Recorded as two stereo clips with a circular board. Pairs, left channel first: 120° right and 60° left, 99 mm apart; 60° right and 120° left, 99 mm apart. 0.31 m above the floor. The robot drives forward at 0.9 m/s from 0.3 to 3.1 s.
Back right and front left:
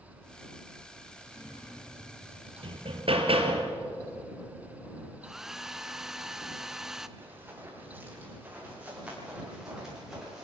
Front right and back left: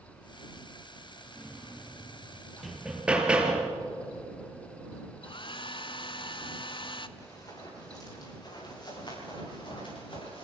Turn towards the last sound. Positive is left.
turn(degrees=-30)